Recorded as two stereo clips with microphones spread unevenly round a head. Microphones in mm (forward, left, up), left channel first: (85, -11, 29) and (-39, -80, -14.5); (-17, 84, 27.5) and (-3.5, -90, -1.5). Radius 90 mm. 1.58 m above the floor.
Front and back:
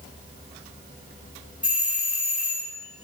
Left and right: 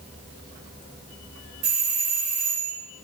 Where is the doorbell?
50° right, 2.5 m.